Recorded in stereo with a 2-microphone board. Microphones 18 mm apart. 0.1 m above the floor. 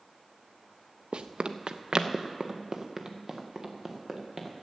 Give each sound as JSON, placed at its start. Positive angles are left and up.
{"t": 1.1, "sound": "running footsteps", "side_deg": -75, "distance_m": 0.8}